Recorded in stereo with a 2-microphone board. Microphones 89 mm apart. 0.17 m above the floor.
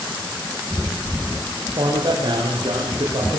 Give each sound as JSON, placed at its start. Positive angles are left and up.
{"t": 1.7, "sound": "a man speaking", "side_deg": -65, "distance_m": 8.5}